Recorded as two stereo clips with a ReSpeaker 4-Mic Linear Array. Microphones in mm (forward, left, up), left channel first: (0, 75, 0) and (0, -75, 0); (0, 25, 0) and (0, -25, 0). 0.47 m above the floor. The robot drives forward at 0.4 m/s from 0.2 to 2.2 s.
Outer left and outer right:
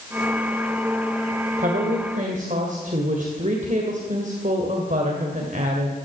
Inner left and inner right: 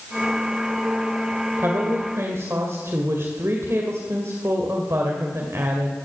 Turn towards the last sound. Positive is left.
turn(degrees=-60)  # may be behind; listen again after turning